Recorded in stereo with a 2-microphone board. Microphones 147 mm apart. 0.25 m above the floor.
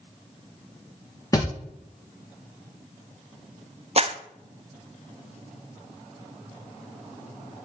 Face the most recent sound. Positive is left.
turn(degrees=-45)  # may be behind; listen again after turning